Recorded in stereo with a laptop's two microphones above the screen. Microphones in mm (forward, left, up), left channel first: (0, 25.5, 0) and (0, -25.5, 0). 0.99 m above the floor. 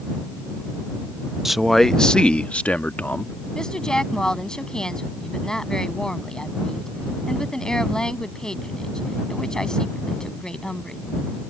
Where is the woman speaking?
15° left (ahead or behind).